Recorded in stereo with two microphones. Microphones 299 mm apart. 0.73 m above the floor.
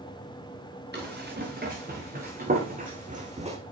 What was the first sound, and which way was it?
Running footsteps, 35° right (ahead or behind).